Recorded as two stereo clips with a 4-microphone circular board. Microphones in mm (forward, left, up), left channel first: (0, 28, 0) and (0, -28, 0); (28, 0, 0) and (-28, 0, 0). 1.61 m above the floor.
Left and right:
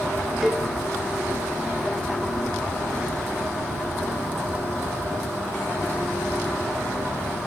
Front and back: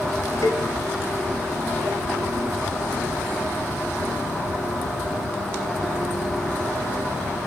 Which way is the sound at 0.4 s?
10° right.